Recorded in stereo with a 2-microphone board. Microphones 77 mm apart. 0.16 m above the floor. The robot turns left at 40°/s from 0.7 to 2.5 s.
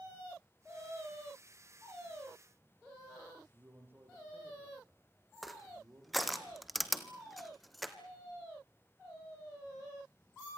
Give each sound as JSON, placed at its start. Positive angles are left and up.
{"t": 3.5, "sound": "a man speaking", "side_deg": -30, "distance_m": 6.0}
{"t": 5.4, "sound": "crushing", "side_deg": 0, "distance_m": 1.2}